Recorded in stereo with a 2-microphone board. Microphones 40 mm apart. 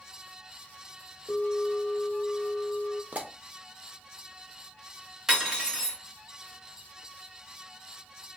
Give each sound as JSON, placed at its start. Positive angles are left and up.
{"t": 1.3, "sound": "a bell", "side_deg": 45, "distance_m": 1.0}
{"t": 3.1, "sound": "a pop", "side_deg": -40, "distance_m": 0.6}
{"t": 5.3, "sound": "cutlery clinking", "side_deg": -15, "distance_m": 1.0}